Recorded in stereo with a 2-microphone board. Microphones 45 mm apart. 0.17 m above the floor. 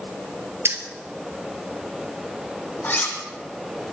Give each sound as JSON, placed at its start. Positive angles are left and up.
{"t": 0.7, "sound": "keys jangling", "side_deg": -65, "distance_m": 2.5}
{"t": 2.8, "sound": "cutlery clinking", "side_deg": 50, "distance_m": 5.0}